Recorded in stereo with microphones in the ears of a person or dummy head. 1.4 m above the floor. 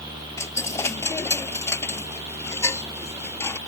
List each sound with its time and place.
0.4 s a dropped coin: 20° left (ahead or behind)